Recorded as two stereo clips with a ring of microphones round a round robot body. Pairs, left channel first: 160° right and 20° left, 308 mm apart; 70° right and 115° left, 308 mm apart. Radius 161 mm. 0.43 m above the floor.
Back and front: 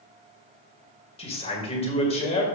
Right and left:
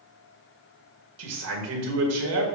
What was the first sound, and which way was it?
A man speaking, 135° left.